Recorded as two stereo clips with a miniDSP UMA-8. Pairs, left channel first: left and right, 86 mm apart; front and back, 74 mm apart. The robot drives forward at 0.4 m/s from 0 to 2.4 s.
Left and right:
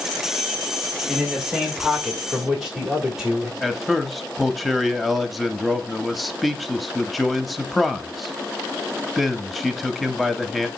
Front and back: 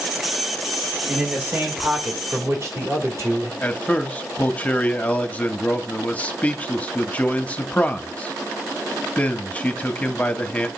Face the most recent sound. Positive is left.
turn(degrees=5)